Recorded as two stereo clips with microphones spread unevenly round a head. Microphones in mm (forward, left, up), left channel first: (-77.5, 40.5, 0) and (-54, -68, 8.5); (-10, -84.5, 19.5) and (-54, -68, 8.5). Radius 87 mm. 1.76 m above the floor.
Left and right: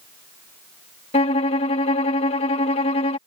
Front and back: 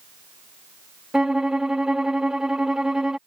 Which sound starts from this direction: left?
A violin, at 1.1 s.